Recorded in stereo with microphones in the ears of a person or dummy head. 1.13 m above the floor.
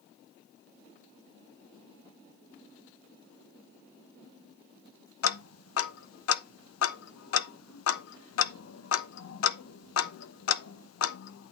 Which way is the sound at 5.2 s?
75° left (ahead or behind).